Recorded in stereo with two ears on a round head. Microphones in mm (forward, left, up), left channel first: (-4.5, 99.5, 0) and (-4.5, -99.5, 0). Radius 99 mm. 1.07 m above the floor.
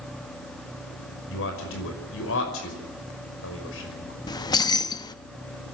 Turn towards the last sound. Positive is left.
turn(degrees=20)  # may be behind; listen again after turning